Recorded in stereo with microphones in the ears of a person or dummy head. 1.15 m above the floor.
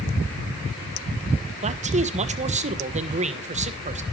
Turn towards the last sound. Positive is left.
turn(degrees=-35)  # may be behind; listen again after turning